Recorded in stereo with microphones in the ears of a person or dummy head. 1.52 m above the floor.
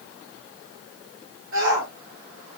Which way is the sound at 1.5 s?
80° right.